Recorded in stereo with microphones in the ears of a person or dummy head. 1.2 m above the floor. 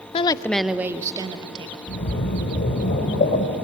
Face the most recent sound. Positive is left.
turn(degrees=50)  # may be behind; listen again after turning